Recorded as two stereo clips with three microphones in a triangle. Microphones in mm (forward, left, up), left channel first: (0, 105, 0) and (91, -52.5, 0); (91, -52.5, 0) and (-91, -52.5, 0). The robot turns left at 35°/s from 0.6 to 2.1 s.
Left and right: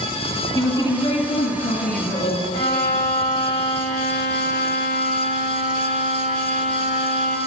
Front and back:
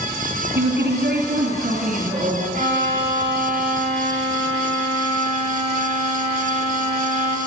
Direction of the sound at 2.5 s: 135° left.